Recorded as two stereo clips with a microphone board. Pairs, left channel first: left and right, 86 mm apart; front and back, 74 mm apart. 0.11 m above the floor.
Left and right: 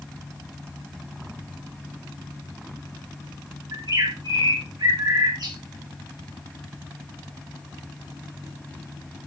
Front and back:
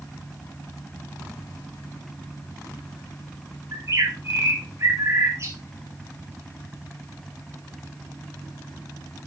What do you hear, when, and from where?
3.7 s a bird: 130° right, 5.5 m